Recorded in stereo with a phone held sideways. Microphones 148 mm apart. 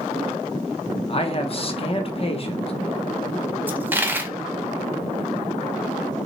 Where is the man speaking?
40° left (ahead or behind), 0.8 m.